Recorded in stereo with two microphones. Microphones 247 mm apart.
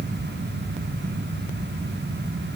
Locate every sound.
Only background noise.